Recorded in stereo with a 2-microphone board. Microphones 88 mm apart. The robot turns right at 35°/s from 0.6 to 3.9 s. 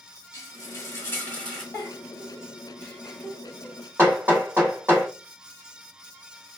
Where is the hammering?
25° right (ahead or behind), 2 m.